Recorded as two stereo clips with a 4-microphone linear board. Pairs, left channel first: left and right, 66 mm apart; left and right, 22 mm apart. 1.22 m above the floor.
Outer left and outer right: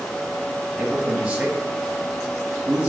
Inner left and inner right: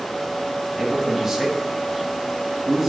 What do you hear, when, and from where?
0.8 s a man speaking: 15° right (ahead or behind), 1.2 m